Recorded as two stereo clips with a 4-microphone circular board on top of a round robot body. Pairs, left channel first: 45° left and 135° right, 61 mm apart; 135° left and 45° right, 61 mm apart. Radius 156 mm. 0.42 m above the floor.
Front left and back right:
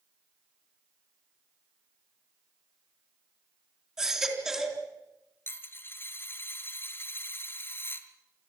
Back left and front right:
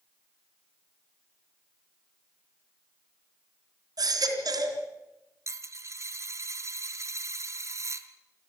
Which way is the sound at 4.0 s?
55° right.